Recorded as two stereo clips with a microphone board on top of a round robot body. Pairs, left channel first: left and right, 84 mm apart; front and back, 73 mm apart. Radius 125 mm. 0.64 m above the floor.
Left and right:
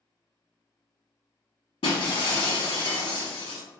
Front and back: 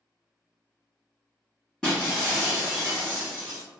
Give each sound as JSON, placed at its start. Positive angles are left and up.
{"t": 1.8, "sound": "breaking glass", "azimuth_deg": 80, "distance_m": 0.9}